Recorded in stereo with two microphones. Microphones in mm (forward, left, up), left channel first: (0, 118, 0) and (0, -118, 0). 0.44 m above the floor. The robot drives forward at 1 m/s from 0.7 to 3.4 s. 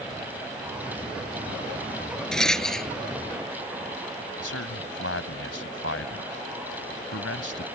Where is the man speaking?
70° left (ahead or behind).